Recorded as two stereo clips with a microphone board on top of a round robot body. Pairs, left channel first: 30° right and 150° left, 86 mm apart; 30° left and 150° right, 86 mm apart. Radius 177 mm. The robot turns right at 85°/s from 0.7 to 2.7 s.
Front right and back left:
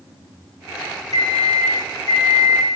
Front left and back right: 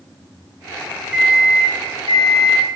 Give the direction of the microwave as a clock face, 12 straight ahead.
2 o'clock.